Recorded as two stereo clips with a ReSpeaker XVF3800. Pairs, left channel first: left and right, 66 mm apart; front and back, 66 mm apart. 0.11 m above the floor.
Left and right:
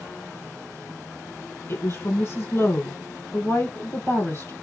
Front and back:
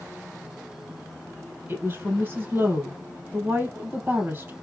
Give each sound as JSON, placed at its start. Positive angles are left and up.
{"t": 1.7, "sound": "a woman speaking", "azimuth_deg": 130, "distance_m": 3.5}